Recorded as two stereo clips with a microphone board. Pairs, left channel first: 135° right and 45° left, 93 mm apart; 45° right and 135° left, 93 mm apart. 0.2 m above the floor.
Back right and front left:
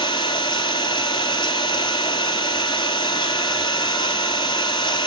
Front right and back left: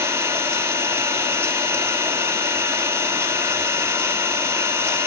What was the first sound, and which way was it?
An engine running, 165° right.